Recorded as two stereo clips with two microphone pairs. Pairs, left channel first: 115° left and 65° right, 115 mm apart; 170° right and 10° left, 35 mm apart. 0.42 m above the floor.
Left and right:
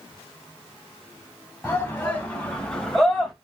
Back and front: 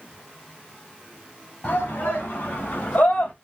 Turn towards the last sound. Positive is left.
turn(degrees=-155)